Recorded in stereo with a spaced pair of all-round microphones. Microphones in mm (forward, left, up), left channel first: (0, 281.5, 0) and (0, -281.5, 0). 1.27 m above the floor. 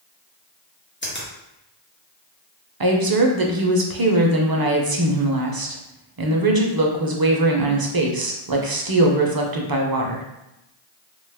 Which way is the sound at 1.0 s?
20° left (ahead or behind).